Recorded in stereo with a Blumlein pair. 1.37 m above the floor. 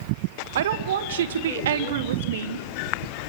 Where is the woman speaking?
60° right, 1.4 m.